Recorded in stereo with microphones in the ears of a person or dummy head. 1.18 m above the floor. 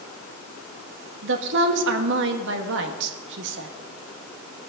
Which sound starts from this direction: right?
A woman speaking, at 1.2 s.